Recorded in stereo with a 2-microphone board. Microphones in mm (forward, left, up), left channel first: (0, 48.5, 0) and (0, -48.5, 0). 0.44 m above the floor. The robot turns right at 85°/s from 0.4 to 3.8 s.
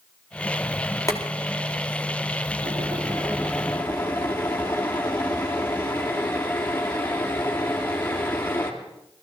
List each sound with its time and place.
1.1 s boiling: 150° left, 2.5 m; by 8.7 s 20° left, 2.5 m